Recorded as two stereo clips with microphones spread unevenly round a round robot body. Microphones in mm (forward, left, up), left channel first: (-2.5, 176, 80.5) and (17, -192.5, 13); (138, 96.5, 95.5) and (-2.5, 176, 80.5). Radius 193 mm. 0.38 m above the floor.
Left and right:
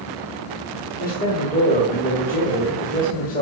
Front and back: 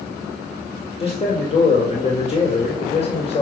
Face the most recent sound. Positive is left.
turn(degrees=20)